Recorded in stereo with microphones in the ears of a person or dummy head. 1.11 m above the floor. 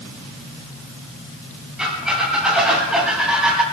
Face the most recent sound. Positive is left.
turn(degrees=-5)  # may be behind; listen again after turning